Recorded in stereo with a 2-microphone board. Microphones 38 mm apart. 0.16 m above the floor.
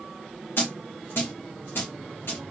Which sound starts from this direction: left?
A dropped coin, at 0.6 s.